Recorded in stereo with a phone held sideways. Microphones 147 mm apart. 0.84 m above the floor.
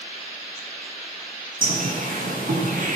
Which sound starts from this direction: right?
A bird, at 1.6 s.